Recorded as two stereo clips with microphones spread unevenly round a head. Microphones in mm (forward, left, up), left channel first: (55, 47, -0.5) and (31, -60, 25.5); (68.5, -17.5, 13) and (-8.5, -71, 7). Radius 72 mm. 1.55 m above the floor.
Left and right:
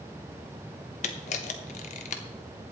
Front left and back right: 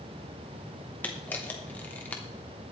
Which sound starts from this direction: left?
A camera shutter, at 1.0 s.